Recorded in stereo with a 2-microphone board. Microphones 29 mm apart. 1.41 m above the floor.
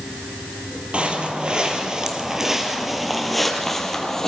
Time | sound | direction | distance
0.9 | footsteps | 40° right (ahead or behind) | 1.8 m